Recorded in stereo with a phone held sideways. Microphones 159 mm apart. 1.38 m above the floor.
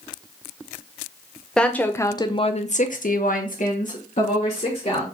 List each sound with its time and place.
1.6 s a woman speaking: 5° left (ahead or behind), 0.7 m; by 5.0 s 50° left (ahead or behind), 1.3 m